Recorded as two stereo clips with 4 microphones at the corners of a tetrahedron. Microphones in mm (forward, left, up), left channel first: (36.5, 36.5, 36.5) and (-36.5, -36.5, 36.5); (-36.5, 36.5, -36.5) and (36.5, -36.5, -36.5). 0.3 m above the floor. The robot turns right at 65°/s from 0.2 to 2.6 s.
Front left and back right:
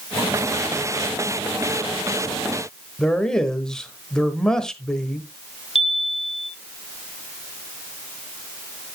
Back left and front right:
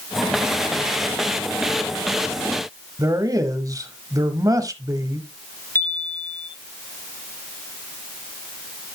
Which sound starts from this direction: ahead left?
A chime, at 5.8 s.